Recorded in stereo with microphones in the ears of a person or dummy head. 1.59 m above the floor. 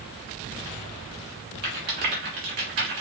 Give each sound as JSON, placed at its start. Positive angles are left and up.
{"t": 1.6, "sound": "a rattle", "side_deg": -40, "distance_m": 1.2}